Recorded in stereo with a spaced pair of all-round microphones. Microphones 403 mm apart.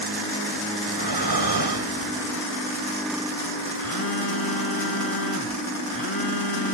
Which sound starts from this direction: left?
A phone buzzing, at 3.8 s.